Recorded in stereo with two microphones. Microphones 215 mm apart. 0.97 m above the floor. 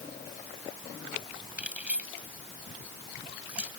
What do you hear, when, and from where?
1.6 s keys jangling: 5° right (ahead or behind)